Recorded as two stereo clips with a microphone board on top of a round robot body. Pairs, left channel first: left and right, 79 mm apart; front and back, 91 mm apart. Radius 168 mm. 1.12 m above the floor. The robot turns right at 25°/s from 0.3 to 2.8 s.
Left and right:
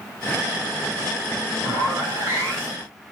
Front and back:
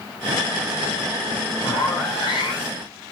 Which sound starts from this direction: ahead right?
A zipper, at 1.6 s.